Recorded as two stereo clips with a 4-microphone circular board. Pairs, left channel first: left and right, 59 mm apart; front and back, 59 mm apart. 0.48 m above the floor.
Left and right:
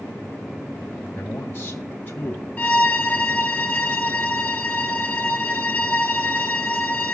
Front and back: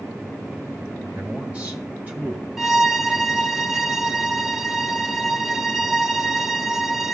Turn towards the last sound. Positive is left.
turn(degrees=110)